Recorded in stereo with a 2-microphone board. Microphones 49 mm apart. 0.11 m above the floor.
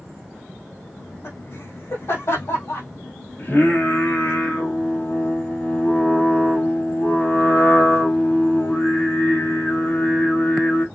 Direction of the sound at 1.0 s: 60° left (ahead or behind).